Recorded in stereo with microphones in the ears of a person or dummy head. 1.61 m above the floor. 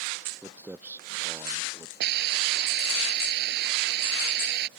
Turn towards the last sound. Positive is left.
turn(degrees=-70)  # may be behind; listen again after turning